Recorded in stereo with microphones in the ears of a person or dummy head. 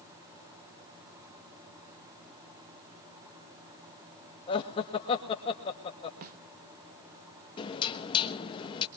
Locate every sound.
4.5 s laughter: 30° left (ahead or behind), 2.0 m
6.2 s a snare drum: 50° right (ahead or behind), 1.0 m
7.6 s knocking: 30° left (ahead or behind), 1.1 m